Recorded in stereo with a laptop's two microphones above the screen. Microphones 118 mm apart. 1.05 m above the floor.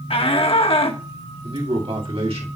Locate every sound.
0.1 s a shout: 50° left (ahead or behind), 1.3 m
1.4 s a man speaking: 50° right (ahead or behind), 2.5 m